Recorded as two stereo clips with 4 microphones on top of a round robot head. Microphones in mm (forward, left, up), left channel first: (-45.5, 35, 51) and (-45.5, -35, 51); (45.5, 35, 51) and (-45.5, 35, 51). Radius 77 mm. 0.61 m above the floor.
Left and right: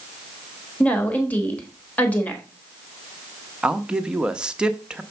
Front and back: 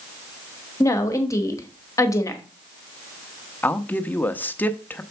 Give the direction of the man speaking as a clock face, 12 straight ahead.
1 o'clock.